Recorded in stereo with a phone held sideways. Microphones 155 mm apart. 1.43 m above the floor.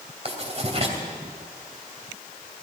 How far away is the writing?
About 2.5 m.